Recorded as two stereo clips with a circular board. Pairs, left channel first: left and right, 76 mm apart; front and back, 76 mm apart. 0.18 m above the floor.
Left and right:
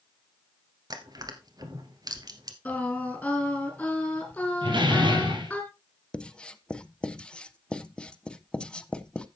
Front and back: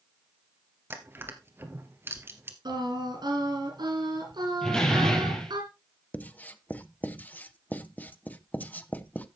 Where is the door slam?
80° right, 3 m.